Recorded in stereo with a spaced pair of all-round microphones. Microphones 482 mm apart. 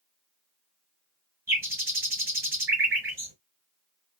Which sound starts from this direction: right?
A bird, at 1.5 s.